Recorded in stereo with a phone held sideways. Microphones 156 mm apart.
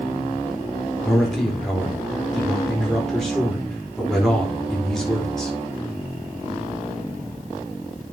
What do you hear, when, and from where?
1.1 s a man speaking: centre (ahead or behind), 4.5 m